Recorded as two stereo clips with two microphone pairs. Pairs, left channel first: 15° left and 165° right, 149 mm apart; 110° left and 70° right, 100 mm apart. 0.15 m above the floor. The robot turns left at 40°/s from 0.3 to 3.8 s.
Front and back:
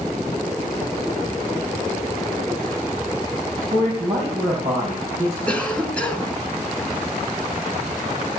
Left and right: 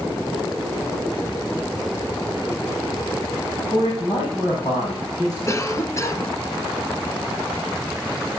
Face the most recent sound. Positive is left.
turn(degrees=90)